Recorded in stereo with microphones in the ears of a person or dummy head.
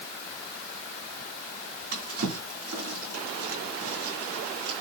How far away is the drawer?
About 4 m.